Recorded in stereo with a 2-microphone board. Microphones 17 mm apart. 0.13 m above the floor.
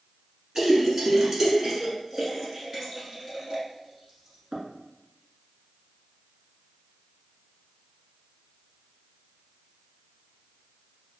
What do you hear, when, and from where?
0.6 s a splash: 30° right (ahead or behind), 1.1 m